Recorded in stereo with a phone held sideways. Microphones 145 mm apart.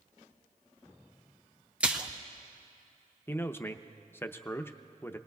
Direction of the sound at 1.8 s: 10° right (ahead or behind).